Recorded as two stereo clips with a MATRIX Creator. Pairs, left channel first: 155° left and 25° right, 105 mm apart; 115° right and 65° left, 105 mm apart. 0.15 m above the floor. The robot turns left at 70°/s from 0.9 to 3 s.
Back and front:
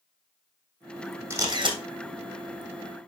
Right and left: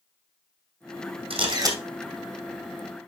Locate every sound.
1.3 s a camera shutter: 45° left, 2.5 m; by 1.8 s 10° left, 2.5 m